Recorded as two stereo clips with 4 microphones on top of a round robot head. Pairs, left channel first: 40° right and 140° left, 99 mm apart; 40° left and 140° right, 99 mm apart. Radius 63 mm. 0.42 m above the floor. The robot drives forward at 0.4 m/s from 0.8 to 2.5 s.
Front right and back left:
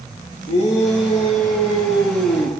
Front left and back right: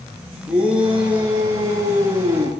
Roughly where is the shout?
Ahead right.